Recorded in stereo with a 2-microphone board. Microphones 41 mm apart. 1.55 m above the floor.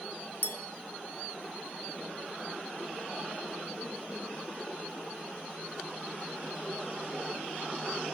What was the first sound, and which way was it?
A clink, 50° left (ahead or behind).